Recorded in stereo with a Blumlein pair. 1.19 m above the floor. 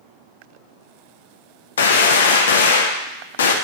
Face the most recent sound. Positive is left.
turn(degrees=65)